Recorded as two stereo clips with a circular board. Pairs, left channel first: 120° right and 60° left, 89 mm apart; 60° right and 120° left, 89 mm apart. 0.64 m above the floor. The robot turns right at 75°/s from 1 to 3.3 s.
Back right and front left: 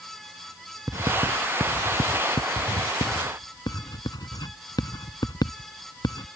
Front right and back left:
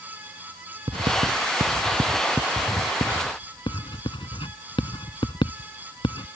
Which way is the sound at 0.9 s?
110° left.